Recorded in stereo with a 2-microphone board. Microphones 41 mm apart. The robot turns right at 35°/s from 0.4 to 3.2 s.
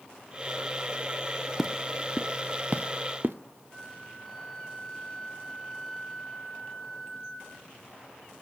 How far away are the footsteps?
About 0.6 m.